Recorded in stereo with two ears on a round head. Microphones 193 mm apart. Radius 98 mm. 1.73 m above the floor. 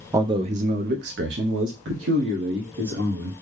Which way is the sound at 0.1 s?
15° right (ahead or behind).